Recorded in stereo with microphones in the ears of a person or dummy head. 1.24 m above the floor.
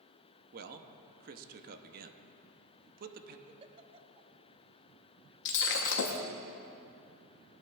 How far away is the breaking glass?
About 1.0 m.